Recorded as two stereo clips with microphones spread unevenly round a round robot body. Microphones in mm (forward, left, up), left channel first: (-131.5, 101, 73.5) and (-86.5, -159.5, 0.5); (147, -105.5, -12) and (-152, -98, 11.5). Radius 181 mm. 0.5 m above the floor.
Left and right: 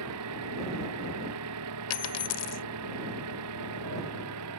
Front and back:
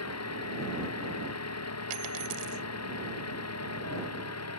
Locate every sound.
0.0 s an engine running: 40° right
1.9 s a dropped coin: 130° left